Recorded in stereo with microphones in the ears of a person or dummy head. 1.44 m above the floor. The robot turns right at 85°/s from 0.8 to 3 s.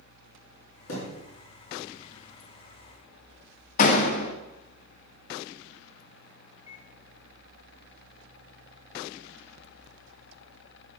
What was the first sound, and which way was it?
A thud, 75° left (ahead or behind).